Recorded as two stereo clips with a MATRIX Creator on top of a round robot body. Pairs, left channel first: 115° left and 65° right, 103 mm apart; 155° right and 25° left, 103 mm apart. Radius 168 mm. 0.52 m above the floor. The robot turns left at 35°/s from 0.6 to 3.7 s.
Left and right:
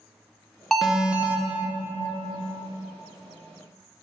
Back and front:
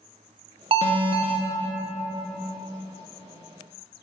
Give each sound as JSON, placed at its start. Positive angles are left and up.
{"t": 0.7, "sound": "an alarm", "azimuth_deg": 25, "distance_m": 0.5}